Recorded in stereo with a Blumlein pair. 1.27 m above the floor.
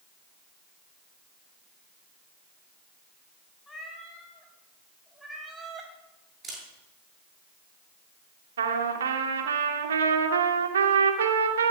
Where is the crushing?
I don't hear crushing.